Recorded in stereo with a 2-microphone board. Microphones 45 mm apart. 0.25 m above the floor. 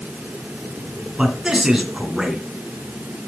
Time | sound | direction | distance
1.2 | a man speaking | 15° right (ahead or behind) | 2.5 m